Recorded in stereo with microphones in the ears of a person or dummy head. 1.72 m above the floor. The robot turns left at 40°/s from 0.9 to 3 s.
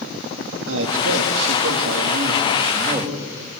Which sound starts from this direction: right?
A man speaking, at 0.7 s.